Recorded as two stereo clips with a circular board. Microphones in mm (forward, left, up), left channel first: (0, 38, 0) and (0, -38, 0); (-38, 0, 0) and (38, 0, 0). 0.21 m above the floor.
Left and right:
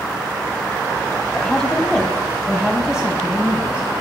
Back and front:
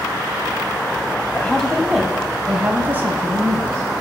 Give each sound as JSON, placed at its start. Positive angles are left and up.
{"t": 1.3, "sound": "a woman speaking", "azimuth_deg": 140, "distance_m": 1.1}